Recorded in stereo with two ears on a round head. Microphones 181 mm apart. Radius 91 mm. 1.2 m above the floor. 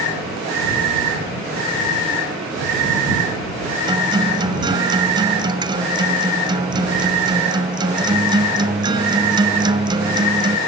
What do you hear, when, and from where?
3.9 s a guitar: 25° right (ahead or behind)